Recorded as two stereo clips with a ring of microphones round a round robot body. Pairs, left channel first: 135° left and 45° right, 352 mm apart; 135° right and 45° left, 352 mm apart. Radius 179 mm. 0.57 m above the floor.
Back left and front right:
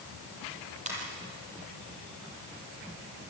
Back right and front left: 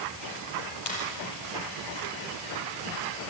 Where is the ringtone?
115° right, 7 m.